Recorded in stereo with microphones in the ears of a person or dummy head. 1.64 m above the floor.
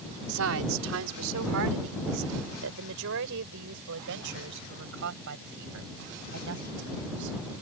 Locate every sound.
0.3 s a woman speaking: 80° right; by 7.6 s 65° right (ahead or behind)